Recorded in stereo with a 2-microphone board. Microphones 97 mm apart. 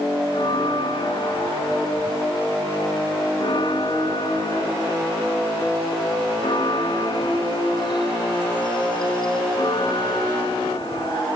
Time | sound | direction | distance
0.3 | a bell | 55° left (ahead or behind) | ?